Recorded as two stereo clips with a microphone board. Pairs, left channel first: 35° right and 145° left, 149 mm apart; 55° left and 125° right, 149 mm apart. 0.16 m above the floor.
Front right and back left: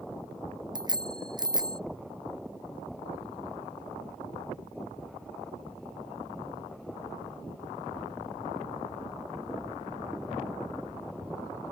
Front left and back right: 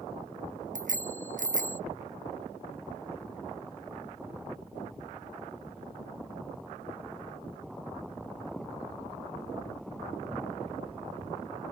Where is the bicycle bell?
155° right.